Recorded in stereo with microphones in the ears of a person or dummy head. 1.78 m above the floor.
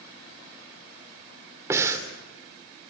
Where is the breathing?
25° right (ahead or behind), 3 m.